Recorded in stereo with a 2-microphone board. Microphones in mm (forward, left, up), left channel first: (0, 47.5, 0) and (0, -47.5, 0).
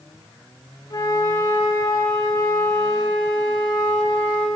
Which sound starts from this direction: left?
A flute, at 0.9 s.